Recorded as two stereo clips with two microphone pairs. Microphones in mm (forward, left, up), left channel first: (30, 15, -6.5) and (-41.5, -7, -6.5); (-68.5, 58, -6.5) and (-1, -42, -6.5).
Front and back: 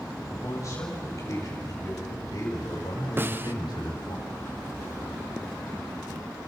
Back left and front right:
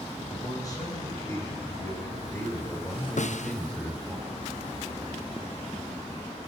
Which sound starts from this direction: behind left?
A snare drum, at 3.2 s.